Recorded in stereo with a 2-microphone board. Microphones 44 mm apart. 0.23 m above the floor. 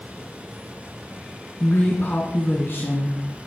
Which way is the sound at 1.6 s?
55° left (ahead or behind).